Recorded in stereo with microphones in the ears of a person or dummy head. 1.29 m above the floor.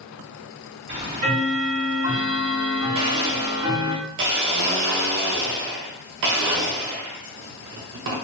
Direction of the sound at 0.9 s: 25° right (ahead or behind).